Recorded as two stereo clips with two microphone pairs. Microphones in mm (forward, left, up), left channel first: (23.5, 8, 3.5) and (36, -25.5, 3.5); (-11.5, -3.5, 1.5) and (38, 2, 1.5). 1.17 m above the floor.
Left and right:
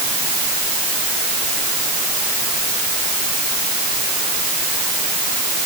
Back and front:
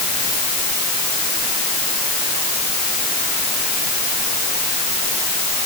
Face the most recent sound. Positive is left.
No sound to turn to.